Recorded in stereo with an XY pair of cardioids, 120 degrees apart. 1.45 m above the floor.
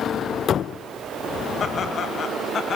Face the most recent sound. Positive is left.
turn(degrees=40)